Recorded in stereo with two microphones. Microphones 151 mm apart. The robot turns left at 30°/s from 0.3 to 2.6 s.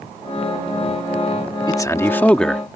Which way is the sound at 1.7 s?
25° left (ahead or behind).